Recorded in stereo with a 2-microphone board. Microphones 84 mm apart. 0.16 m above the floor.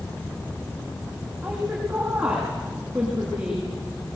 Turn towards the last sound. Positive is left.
turn(degrees=-10)  # may be behind; listen again after turning